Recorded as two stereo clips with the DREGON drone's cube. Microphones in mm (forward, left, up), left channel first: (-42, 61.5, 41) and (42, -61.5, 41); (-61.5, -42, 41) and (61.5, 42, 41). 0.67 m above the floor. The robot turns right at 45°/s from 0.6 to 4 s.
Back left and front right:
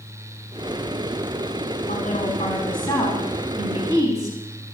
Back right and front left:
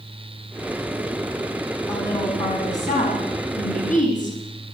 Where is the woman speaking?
145° left, 5.5 m; by 4.4 s 120° right, 5.5 m.